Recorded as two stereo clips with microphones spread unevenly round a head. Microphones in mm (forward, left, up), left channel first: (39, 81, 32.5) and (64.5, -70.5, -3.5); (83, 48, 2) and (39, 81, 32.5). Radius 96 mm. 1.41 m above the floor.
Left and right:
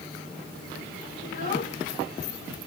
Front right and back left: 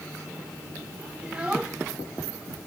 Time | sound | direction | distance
1.2 | a child speaking | 85° left | ?